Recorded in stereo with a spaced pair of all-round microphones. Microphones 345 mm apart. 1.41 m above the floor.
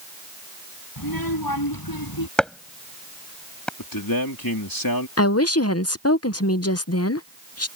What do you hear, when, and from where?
1.0 s a child speaking: 90° left; by 2.3 s 85° left
2.4 s chopping: centre (ahead or behind)
3.8 s a man speaking: 80° left
5.2 s a woman speaking: 45° left (ahead or behind)